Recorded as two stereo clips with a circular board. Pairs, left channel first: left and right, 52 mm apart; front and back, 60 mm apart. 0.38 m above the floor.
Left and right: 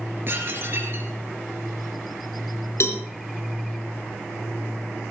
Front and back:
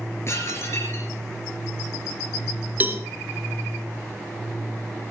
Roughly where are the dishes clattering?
Ahead right.